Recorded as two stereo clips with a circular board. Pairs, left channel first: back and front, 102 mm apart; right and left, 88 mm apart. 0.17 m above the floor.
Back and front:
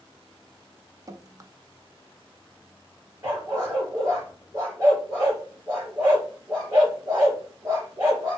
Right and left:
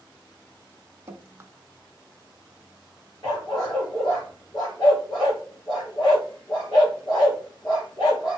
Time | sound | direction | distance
1.1 | dripping | 45° left | 0.5 m
3.2 | a dog barking | 55° right | 3.5 m